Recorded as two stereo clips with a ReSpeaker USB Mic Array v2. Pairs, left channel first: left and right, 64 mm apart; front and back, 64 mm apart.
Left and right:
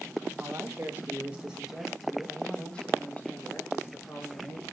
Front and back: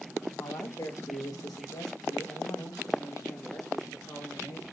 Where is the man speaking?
40° right, 3 m; by 4.6 s 50° left, 4.5 m.